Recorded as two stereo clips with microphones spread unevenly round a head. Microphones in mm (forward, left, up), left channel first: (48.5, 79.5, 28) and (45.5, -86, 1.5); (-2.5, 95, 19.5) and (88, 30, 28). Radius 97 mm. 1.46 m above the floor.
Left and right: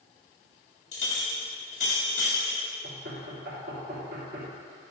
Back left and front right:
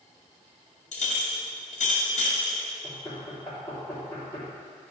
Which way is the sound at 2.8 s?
140° right.